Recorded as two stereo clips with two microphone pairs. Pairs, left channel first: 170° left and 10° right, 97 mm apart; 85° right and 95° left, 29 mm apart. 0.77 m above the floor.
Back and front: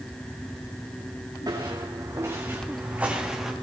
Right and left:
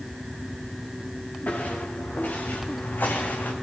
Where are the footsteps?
55° right, 4 m; by 3.5 s 95° right, 3 m.